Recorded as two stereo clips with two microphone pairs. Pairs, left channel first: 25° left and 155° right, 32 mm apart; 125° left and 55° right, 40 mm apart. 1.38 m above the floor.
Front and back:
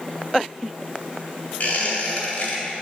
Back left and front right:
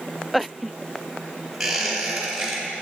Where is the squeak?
25° left, 1.8 m.